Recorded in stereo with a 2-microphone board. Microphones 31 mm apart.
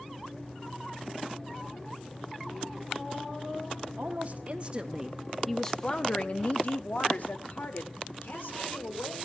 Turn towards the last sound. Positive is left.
turn(degrees=75)  # may be behind; listen again after turning